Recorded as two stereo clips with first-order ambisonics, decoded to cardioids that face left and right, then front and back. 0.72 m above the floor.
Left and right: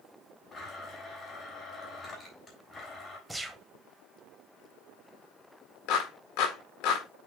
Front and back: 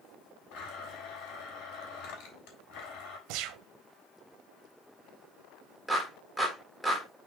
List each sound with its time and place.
0.5 s a blender: 20° left, 3.5 m
3.3 s a gunshot: 175° right, 0.9 m
5.9 s a clap: 90° left, 2 m